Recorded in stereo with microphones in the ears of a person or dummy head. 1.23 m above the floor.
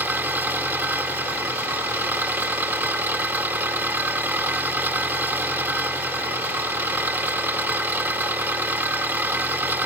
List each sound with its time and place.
0.0 s an engine running: 15° right (ahead or behind)